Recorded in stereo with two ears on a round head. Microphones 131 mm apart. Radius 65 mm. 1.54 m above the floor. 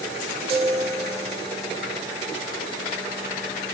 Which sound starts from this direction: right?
A chime, at 0.5 s.